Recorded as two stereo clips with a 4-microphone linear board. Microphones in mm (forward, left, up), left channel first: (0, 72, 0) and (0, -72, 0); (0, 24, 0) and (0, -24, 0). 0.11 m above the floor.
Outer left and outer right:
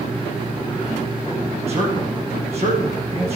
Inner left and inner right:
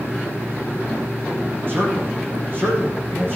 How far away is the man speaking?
About 5 m.